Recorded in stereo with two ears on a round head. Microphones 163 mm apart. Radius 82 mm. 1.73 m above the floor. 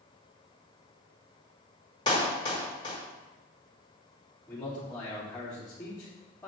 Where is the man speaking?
5° left (ahead or behind), 4 m.